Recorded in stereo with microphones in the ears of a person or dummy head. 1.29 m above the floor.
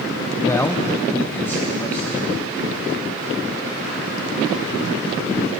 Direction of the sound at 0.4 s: 15° left (ahead or behind).